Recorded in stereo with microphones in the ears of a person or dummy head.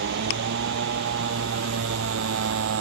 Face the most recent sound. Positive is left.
turn(degrees=-65)  # may be behind; listen again after turning